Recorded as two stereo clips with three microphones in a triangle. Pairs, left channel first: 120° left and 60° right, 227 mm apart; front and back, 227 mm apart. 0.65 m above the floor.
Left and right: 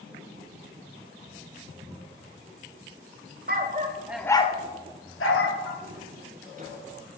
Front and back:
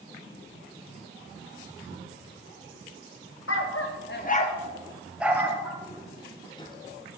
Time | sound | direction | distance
3.5 | a dog barking | 15° right | 0.7 m
5.8 | footsteps | 75° right | 1.1 m